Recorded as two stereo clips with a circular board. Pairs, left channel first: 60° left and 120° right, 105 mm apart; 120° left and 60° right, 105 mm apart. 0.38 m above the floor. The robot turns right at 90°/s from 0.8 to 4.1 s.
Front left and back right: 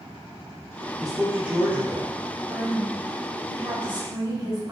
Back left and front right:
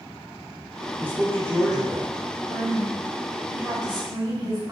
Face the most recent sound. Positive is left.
turn(degrees=-75)